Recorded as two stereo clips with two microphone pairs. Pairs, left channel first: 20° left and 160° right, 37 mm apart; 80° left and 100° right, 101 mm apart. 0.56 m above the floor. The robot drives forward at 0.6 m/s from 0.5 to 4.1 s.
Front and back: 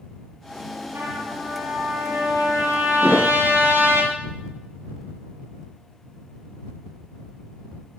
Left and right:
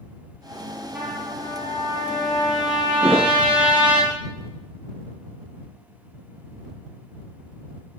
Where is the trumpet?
175° right, 9 m.